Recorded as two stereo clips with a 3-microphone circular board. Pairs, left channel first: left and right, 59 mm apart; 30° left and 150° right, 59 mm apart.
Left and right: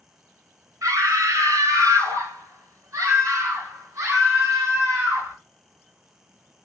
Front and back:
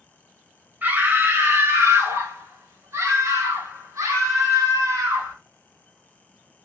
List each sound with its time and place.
0.8 s a scream: 95° right, 1.7 m; by 5.4 s 130° right, 4 m